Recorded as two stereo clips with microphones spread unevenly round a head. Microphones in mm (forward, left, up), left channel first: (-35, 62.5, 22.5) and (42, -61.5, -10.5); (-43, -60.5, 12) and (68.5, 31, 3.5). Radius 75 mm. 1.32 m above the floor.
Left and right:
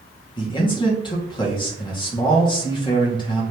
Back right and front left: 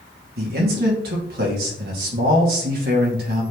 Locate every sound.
0.4 s a man speaking: 65° left, 2.5 m